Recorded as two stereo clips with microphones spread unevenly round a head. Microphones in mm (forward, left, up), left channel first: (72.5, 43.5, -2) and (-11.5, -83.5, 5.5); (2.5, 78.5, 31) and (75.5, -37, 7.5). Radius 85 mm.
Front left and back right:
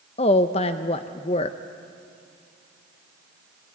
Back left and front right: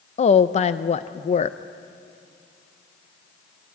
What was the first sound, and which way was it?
A woman speaking, 90° left.